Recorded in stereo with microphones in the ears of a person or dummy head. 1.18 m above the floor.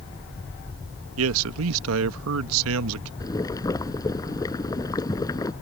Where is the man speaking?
80° right.